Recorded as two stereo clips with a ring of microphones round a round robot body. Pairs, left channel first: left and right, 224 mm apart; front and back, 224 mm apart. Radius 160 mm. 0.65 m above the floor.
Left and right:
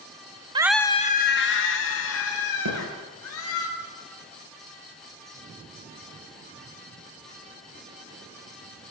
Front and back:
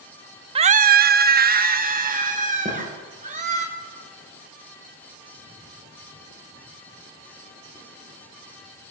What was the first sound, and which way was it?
A scream, 140° right.